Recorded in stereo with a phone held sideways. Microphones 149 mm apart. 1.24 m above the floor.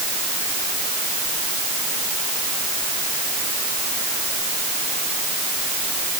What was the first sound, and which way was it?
Only background noise.